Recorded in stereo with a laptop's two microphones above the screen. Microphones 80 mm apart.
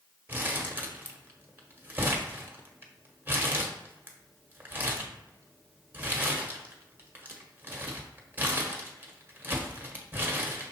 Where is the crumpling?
20° right (ahead or behind), 1.0 m.